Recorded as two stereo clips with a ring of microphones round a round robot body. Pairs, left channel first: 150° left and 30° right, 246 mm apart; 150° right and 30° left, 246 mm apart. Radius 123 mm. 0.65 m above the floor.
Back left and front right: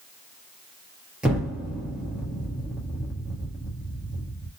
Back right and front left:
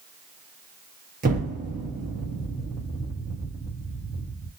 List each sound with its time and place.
1.2 s an explosion: 50° left, 1.1 m